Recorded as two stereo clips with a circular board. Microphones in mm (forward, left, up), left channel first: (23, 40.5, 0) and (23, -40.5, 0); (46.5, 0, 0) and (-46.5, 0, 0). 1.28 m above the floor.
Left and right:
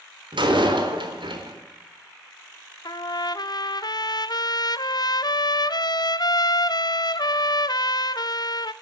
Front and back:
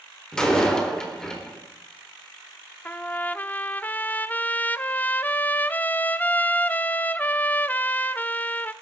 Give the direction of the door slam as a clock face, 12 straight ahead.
3 o'clock.